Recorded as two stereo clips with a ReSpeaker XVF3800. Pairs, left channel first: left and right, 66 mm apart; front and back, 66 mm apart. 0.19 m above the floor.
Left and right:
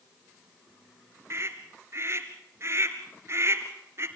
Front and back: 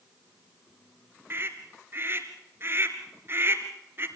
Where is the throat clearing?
I don't hear throat clearing.